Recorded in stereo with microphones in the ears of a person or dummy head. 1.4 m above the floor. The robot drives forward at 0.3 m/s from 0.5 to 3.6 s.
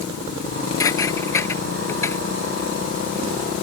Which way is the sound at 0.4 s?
15° left (ahead or behind).